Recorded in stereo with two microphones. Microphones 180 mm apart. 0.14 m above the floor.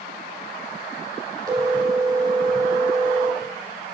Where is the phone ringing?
20° right (ahead or behind), 2 m.